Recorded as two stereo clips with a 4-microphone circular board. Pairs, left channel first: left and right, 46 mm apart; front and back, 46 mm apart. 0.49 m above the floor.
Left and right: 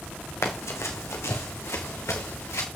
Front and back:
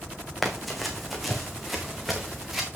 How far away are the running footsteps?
About 2.5 m.